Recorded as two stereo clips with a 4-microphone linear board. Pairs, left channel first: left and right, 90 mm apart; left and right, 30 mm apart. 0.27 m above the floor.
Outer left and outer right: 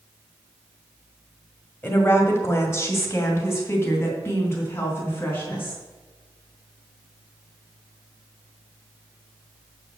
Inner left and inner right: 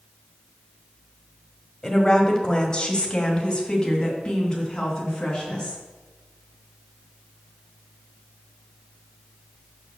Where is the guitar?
No guitar in this recording.